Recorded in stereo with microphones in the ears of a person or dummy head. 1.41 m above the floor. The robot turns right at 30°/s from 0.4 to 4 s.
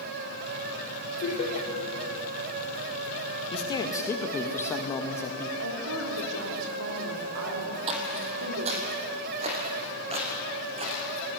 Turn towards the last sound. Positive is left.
turn(degrees=-35)  # may be behind; listen again after turning